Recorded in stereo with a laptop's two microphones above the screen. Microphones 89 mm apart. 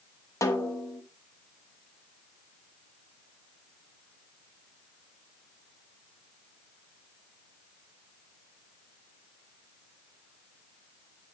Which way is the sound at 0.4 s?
35° left (ahead or behind).